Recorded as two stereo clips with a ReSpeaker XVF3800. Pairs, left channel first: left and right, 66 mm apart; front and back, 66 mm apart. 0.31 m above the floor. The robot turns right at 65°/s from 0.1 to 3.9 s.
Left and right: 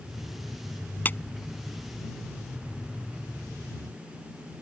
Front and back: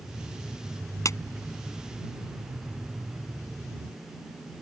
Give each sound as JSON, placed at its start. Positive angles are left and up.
{"t": 1.1, "sound": "a clap", "azimuth_deg": 30}